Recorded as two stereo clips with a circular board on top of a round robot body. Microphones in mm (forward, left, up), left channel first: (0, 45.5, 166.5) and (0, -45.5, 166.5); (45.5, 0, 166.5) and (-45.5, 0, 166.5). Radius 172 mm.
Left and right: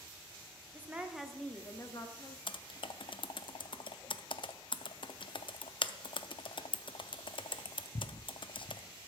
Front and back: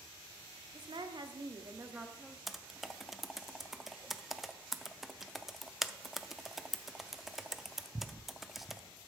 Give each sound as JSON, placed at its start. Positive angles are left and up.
{"t": 0.7, "sound": "a woman speaking", "azimuth_deg": -160, "distance_m": 1.5}
{"t": 2.5, "sound": "typing on a keyboard", "azimuth_deg": 95, "distance_m": 0.6}